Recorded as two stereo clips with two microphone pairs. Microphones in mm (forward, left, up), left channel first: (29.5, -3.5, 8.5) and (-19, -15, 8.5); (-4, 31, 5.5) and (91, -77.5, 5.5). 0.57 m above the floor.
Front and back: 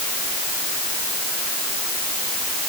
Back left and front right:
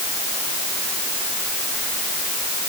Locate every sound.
Only background noise.